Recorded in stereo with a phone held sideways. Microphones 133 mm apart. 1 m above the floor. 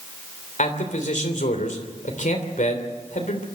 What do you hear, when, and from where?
0.6 s a man speaking: 65° left (ahead or behind), 3 m